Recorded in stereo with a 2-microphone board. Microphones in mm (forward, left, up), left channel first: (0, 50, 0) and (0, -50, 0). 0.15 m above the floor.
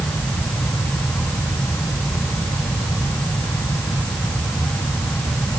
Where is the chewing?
No chewing in this recording.